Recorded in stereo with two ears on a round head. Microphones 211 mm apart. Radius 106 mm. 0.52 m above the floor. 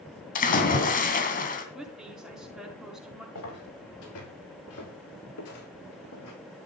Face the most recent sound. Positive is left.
turn(degrees=70)  # may be behind; listen again after turning